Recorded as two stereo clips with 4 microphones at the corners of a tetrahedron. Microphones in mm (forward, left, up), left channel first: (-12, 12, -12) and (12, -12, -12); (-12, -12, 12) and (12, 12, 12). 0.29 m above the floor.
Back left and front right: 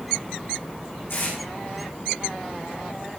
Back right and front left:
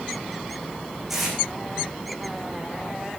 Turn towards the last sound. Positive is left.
turn(degrees=125)